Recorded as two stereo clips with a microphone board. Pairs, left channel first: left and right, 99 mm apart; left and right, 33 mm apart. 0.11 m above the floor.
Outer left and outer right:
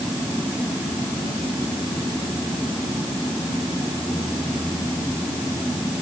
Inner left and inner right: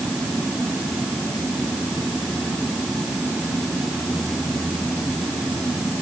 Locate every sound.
Only background noise.